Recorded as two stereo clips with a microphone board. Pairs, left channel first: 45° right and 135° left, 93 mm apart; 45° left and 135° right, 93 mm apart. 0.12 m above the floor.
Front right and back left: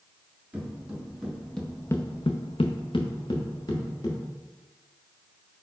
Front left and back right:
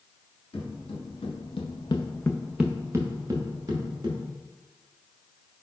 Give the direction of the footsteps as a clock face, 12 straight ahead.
10 o'clock.